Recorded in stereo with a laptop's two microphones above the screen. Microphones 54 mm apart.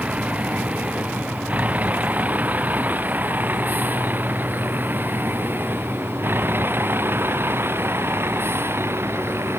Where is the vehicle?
25° right (ahead or behind); by 9.6 s 50° right (ahead or behind).